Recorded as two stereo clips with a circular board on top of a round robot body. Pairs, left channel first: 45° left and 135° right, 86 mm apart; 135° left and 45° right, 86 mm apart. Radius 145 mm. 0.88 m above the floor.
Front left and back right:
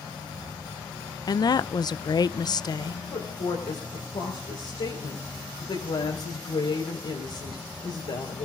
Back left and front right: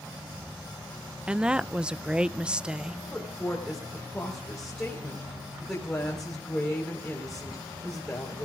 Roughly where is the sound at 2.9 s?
Ahead left.